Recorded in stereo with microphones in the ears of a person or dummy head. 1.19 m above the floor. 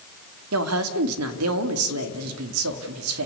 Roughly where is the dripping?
No dripping in this recording.